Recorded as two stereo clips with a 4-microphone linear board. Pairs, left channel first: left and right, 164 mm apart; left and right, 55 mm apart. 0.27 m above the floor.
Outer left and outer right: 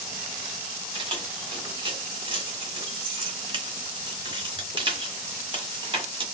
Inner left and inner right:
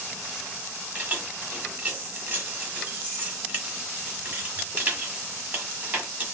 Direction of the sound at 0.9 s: 30° right (ahead or behind).